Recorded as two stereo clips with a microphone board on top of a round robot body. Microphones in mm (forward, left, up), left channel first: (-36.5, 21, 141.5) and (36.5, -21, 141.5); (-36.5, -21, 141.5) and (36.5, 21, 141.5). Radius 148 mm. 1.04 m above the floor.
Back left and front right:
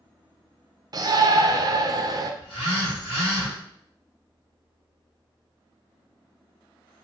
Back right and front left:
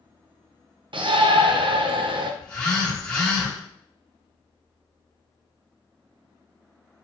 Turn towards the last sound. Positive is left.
turn(degrees=135)